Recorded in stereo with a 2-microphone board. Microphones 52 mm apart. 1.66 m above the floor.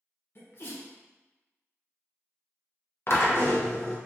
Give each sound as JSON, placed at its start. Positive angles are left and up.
{"t": 0.3, "sound": "a sneeze", "side_deg": 50, "distance_m": 0.8}
{"t": 3.1, "sound": "a drill", "side_deg": 55, "distance_m": 0.6}